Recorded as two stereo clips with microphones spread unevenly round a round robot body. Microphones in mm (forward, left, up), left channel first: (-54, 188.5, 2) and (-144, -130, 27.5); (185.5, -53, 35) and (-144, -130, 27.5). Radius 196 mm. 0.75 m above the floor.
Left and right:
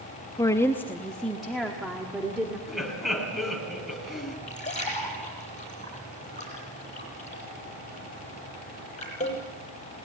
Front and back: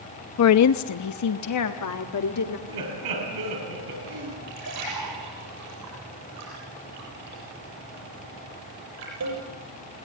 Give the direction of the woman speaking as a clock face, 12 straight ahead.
12 o'clock.